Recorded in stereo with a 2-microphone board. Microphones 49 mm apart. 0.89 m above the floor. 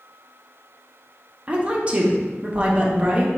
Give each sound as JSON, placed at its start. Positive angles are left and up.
{"t": 1.5, "sound": "a woman speaking", "side_deg": -30, "distance_m": 0.6}